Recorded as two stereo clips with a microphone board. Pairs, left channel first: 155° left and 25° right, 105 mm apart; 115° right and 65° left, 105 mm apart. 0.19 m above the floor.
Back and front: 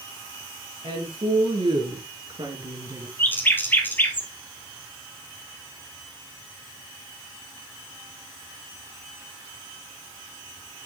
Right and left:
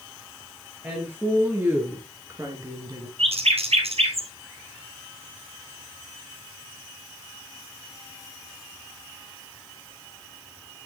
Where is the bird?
85° left, 1.9 m.